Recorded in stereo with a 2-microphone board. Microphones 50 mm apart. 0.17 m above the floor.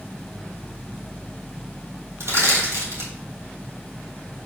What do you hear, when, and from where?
2.2 s crushing: 55° right (ahead or behind), 2.5 m